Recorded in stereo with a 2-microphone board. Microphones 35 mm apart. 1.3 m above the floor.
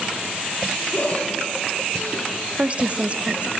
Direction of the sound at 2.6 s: 35° right (ahead or behind).